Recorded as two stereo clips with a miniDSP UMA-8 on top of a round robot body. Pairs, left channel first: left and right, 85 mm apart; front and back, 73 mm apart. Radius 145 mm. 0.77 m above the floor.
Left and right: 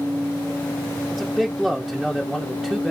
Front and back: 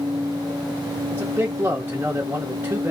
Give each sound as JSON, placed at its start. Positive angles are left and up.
{"t": 1.1, "sound": "a man speaking", "azimuth_deg": -175, "distance_m": 1.0}